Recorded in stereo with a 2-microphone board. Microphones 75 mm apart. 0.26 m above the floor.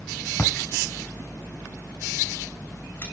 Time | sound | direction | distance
0.4 | a splash | 30° left (ahead or behind) | 5.5 m